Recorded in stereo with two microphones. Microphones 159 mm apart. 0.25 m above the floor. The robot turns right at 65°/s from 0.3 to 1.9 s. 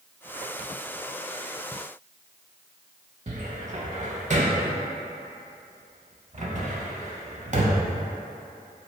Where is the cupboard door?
50° right (ahead or behind), 0.5 m.